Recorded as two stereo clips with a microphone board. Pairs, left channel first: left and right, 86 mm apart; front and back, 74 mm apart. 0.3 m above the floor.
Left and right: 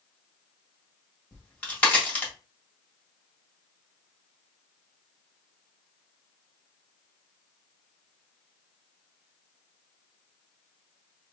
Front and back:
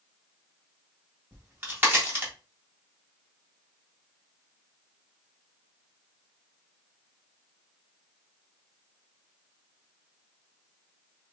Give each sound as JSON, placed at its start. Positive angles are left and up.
{"t": 1.3, "sound": "a crack", "azimuth_deg": 150, "distance_m": 1.6}